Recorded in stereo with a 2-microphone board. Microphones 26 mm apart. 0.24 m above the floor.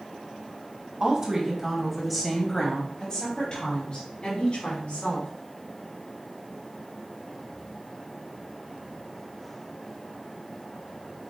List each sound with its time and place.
1.0 s a woman speaking: 30° right (ahead or behind), 1.3 m; by 5.3 s 55° left (ahead or behind), 2.5 m